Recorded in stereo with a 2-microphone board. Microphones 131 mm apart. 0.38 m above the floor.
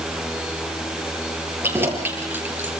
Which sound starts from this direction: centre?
Keys jangling, at 1.6 s.